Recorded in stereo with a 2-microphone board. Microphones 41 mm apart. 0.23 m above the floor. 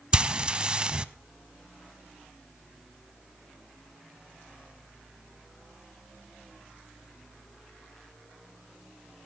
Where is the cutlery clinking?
I don't hear cutlery clinking.